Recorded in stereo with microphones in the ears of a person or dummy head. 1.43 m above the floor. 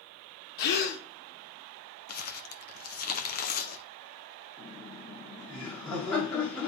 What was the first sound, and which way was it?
A gasp, 50° left (ahead or behind).